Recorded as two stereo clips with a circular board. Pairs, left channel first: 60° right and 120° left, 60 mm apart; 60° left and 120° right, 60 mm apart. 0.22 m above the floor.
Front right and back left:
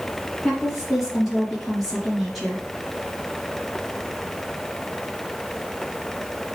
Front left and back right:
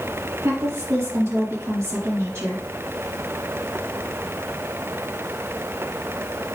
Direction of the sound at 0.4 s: 145° right.